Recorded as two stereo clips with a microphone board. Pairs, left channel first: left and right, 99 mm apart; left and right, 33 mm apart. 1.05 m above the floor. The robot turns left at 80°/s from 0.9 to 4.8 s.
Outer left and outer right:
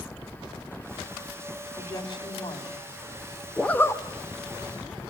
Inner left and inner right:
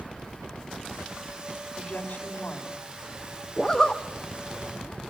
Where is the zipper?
175° left, 1.0 m; by 4.0 s 140° left, 1.0 m.